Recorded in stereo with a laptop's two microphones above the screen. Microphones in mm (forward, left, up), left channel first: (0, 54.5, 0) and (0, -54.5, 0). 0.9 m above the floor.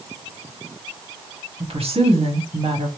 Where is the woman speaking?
65° right (ahead or behind), 1.7 m.